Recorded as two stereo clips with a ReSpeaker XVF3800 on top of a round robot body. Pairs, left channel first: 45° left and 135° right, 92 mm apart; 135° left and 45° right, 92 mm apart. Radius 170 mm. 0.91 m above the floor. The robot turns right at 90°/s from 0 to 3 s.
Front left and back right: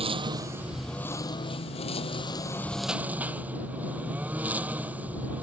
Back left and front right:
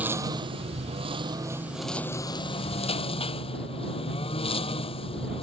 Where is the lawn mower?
120° right; by 5.4 s 150° left.